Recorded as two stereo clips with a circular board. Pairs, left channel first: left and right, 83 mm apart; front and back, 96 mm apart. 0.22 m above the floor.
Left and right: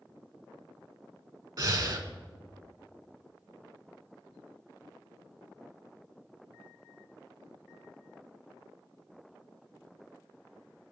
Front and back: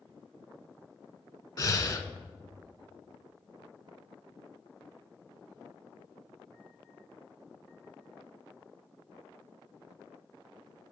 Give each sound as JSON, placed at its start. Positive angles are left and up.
{"t": 1.6, "sound": "breathing", "azimuth_deg": -50, "distance_m": 0.5}